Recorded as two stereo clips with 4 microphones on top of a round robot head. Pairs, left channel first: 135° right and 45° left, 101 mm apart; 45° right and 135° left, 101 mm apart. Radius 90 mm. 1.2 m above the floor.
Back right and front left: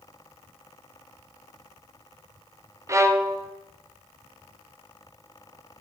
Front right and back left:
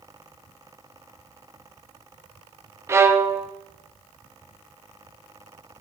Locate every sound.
2.9 s a violin: 85° left, 0.7 m